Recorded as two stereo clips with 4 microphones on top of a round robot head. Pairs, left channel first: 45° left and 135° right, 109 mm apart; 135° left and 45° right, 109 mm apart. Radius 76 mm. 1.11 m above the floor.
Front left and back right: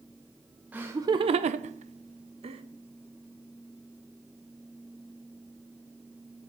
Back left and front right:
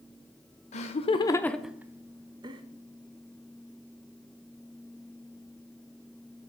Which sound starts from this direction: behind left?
Laughter, at 0.7 s.